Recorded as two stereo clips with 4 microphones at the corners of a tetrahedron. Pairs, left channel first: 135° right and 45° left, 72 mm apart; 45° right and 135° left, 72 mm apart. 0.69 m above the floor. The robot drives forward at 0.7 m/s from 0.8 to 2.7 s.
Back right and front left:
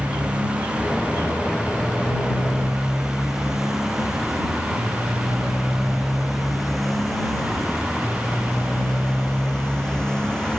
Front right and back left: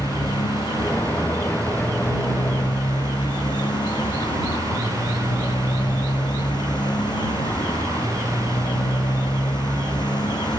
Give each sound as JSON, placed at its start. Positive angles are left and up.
{"t": 0.0, "sound": "a motorcycle", "azimuth_deg": -30}